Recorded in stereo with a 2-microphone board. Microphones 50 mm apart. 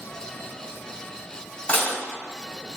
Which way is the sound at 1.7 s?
35° left (ahead or behind).